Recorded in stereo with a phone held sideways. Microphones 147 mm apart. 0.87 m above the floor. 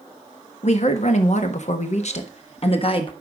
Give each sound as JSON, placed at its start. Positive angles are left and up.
{"t": 0.6, "sound": "a woman speaking", "side_deg": 50, "distance_m": 1.5}